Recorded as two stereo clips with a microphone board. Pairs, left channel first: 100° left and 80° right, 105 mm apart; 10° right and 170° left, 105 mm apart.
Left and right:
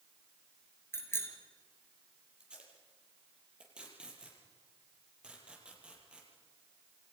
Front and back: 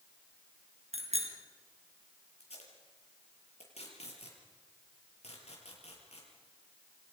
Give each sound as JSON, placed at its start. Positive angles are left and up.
{"t": 0.9, "sound": "a bicycle bell", "azimuth_deg": 170, "distance_m": 4.5}
{"t": 2.4, "sound": "tape being pulled", "azimuth_deg": 0, "distance_m": 7.0}